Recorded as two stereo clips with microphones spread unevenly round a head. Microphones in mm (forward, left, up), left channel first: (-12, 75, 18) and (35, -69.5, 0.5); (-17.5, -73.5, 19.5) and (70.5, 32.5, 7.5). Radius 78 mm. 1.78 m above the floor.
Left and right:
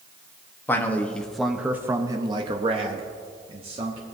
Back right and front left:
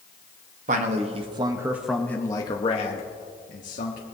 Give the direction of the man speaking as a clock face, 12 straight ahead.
11 o'clock.